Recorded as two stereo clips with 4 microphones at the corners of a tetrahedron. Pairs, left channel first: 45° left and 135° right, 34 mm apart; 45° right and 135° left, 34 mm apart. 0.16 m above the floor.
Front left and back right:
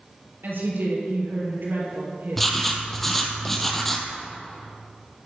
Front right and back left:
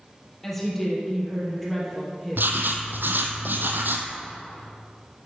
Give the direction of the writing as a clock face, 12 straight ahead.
8 o'clock.